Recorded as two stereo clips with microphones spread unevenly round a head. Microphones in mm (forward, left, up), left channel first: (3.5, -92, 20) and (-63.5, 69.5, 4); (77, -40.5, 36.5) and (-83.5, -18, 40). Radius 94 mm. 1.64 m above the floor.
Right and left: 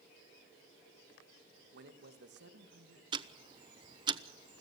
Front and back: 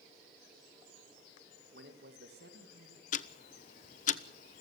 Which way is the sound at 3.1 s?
45° left.